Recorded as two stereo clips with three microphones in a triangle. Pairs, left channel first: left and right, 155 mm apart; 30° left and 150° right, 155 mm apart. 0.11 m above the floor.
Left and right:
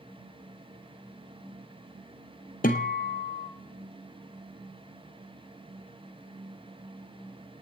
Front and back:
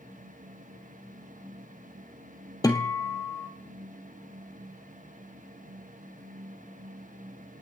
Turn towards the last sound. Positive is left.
turn(degrees=95)